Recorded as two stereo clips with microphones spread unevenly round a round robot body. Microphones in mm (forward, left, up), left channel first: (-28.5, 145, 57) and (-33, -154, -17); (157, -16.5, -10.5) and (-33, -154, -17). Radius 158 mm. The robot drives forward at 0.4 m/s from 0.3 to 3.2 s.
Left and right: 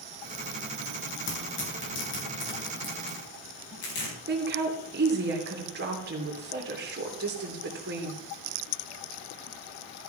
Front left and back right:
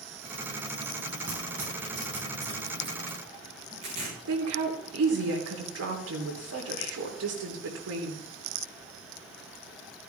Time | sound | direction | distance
1.3 | tearing paper | 140° left | 4.5 m
4.3 | a woman speaking | 140° right | 3 m